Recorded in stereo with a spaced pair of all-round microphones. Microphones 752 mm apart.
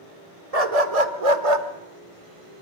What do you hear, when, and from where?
0.5 s a dog barking: 50° right (ahead or behind), 1.5 m; by 1.7 s 40° right (ahead or behind), 1.5 m